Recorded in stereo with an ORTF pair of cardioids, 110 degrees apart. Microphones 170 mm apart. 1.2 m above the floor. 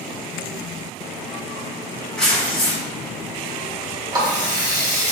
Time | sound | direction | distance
2.2 | tearing paper | 5° left | 1.1 m
4.1 | a running tap | 25° right | 1.0 m